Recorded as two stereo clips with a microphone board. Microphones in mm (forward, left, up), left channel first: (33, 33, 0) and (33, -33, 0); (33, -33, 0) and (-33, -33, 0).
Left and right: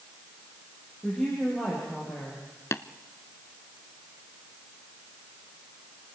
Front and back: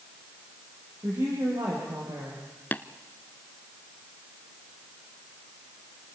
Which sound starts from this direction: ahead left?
Tapping, at 2.7 s.